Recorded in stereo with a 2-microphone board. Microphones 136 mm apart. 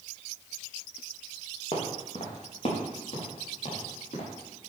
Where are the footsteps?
55° left (ahead or behind), 3.5 m; by 4.3 s 65° left (ahead or behind), 5.5 m.